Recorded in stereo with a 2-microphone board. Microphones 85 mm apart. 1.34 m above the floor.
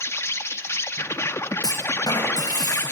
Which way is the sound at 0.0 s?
30° left (ahead or behind).